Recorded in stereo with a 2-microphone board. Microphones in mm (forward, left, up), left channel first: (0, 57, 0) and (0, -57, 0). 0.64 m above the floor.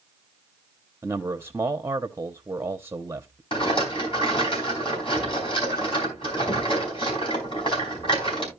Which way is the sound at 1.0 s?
20° right (ahead or behind).